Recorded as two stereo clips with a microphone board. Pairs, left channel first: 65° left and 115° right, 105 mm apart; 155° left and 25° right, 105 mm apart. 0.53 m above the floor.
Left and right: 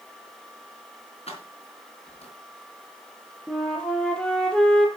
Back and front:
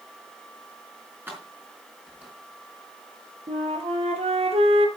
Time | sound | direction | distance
1.3 | keys jangling | 50° left | 4 m
3.5 | a flute | 10° right | 3 m